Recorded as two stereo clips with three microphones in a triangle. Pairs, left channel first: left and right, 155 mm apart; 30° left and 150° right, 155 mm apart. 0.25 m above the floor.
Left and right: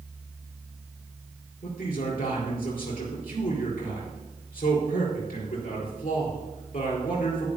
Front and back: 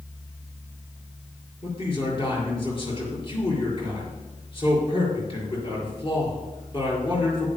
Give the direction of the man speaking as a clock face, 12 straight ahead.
9 o'clock.